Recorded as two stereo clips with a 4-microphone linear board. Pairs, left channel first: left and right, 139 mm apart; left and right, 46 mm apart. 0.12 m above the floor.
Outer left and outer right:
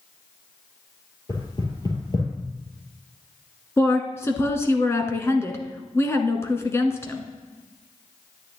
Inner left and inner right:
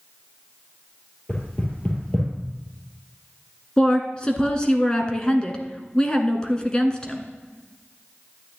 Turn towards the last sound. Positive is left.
turn(degrees=20)  # may be behind; listen again after turning